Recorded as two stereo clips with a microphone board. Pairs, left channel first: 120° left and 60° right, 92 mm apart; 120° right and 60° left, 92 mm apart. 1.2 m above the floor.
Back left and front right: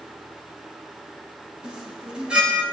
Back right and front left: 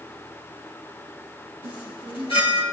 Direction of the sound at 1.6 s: 140° right.